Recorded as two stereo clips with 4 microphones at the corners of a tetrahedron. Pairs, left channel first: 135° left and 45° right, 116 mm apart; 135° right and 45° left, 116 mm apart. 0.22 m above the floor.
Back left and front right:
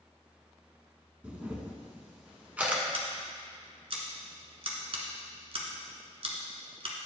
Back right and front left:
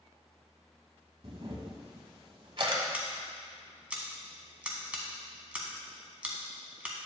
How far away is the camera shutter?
About 1.0 m.